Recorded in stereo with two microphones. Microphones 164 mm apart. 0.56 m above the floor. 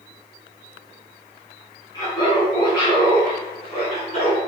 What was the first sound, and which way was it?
Laughter, 20° left (ahead or behind).